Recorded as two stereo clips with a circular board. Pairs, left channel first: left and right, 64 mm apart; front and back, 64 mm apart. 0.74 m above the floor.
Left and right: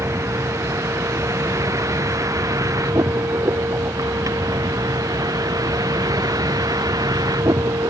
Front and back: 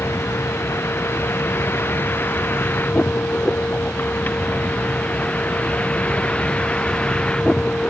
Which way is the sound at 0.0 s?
50° right.